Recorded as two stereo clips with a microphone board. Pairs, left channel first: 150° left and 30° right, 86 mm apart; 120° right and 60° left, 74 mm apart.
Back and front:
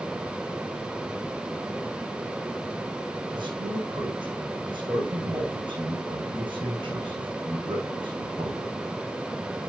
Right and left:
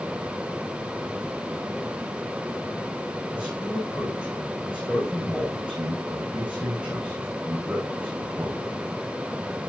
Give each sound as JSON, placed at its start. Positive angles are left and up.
{"t": 3.3, "sound": "a man speaking", "azimuth_deg": -15, "distance_m": 6.5}